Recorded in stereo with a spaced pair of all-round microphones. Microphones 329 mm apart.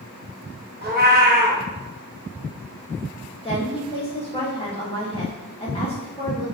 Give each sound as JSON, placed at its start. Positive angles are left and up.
{"t": 0.8, "sound": "a cat meowing", "side_deg": -30, "distance_m": 0.9}
{"t": 3.4, "sound": "a woman speaking", "side_deg": 15, "distance_m": 2.0}